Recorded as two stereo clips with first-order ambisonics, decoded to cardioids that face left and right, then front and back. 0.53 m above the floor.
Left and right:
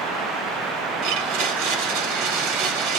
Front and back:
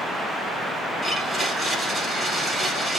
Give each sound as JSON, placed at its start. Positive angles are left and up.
{"t": 1.0, "sound": "a blender", "azimuth_deg": -90, "distance_m": 1.0}